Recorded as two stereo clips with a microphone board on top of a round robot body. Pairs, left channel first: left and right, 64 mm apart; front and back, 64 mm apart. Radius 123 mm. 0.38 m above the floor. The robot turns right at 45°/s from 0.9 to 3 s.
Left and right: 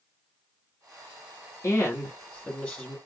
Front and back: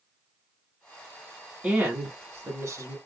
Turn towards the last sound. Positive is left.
turn(degrees=180)